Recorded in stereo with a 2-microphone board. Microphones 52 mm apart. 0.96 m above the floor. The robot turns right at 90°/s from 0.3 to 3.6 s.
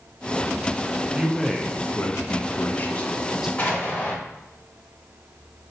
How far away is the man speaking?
About 0.5 m.